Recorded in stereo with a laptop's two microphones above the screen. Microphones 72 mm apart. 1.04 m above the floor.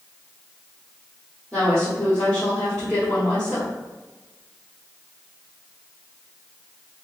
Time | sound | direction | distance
1.5 | a woman speaking | 10° left (ahead or behind) | 1.4 m